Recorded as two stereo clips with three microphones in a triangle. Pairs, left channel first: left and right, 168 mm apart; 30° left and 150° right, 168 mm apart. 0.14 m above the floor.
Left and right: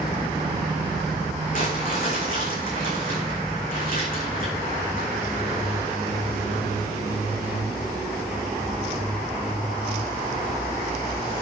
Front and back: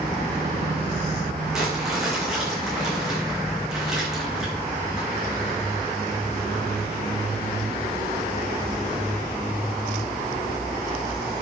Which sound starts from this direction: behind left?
Crumpling, at 1.5 s.